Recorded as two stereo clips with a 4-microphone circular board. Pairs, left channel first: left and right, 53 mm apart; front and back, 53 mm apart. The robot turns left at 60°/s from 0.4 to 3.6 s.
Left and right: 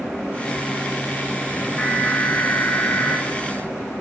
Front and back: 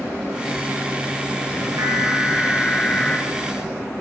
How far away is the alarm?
About 8.5 m.